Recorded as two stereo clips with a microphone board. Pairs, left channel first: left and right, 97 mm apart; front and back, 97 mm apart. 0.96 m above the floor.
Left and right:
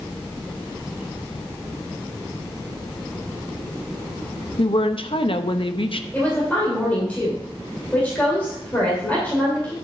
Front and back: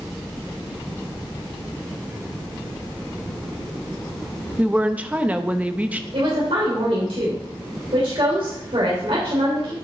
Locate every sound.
4.6 s a woman speaking: 105° left, 0.7 m
6.1 s a woman speaking: 165° left, 3 m